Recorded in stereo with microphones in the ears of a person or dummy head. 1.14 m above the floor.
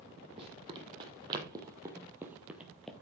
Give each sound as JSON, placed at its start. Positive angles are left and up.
{"t": 0.4, "sound": "running footsteps", "side_deg": -35, "distance_m": 3.0}